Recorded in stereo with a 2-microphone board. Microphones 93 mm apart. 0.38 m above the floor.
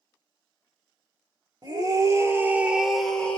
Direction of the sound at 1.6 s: 45° right (ahead or behind).